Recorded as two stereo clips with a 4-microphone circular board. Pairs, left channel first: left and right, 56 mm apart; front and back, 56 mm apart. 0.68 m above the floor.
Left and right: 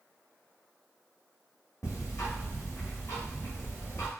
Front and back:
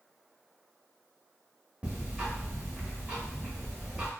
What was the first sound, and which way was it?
Ticking, 110° left.